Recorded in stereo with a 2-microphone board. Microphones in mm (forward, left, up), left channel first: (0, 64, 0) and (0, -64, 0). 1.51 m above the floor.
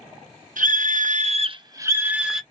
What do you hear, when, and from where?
0.6 s a scream: 80° right, 1.0 m; by 2.4 s 5° right (ahead or behind), 1.3 m